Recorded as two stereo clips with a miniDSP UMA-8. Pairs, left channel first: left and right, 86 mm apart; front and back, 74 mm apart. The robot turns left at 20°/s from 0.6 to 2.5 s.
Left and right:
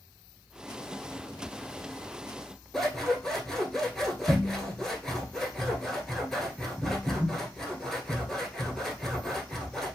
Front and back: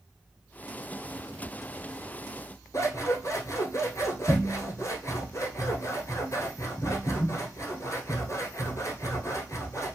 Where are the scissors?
5° left, 1.0 m.